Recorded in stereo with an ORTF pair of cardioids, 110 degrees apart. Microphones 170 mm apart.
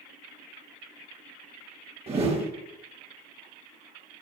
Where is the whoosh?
35° right, 1.4 m.